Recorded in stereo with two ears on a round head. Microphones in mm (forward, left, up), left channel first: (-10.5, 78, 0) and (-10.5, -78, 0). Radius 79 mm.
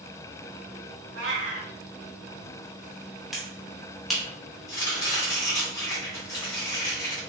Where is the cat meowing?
80° right, 1.2 m.